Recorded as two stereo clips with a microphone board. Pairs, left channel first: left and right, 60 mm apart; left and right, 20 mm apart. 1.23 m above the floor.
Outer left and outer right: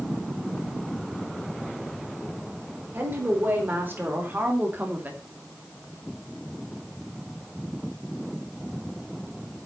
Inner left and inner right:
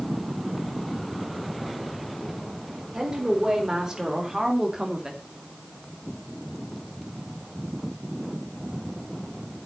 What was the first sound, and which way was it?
A woman speaking, 35° right (ahead or behind).